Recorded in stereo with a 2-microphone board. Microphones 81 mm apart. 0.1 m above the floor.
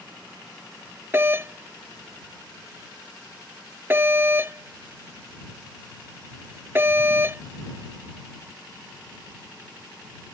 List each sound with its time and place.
1.1 s a doorbell: 30° right (ahead or behind)